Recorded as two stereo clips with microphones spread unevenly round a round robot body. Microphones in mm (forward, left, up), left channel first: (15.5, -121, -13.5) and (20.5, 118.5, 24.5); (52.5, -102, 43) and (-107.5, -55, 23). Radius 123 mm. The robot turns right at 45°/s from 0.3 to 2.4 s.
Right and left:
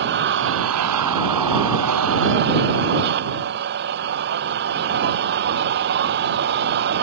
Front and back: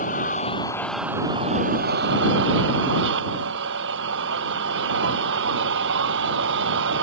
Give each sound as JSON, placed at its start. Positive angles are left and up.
{"t": 0.0, "sound": "an engine running", "azimuth_deg": 45}